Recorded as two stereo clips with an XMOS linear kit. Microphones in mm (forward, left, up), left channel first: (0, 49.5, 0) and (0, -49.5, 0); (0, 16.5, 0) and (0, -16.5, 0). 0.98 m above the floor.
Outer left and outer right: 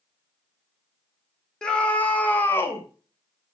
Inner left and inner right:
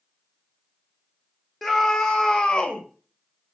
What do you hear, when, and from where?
1.6 s a scream: 10° left (ahead or behind), 2.0 m; by 2.8 s 25° left (ahead or behind), 2.0 m